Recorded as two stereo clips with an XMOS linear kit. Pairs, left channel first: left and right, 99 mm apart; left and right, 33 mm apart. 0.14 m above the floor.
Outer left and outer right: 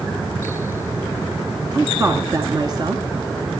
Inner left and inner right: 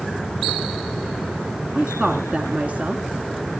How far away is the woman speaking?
About 1.4 m.